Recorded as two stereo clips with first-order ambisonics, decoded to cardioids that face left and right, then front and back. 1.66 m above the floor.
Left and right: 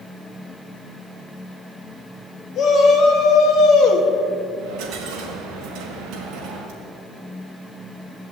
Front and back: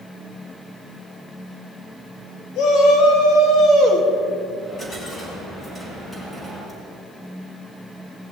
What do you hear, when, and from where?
2.5 s a shout: 35° left, 3.5 m; by 4.1 s 55° left, 2.5 m
4.6 s a dropped coin: 75° right, 4.5 m